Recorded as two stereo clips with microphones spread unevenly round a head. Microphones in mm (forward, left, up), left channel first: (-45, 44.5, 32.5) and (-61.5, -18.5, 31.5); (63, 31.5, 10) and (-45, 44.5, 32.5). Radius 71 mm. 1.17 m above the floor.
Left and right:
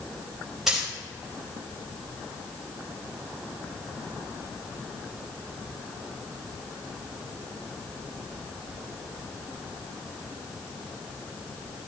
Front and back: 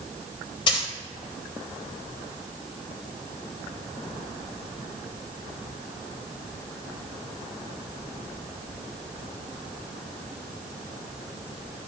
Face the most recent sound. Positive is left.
turn(degrees=-20)